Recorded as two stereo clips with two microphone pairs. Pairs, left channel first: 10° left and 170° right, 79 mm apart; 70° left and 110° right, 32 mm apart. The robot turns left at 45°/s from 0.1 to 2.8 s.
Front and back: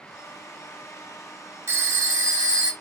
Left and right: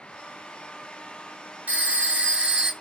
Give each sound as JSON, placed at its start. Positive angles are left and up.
{"t": 1.7, "sound": "a phone ringing", "azimuth_deg": -130, "distance_m": 0.8}